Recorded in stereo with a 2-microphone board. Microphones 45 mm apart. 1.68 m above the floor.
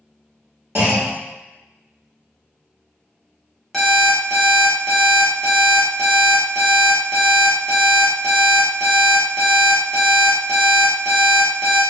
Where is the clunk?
50° right (ahead or behind), 1.2 m.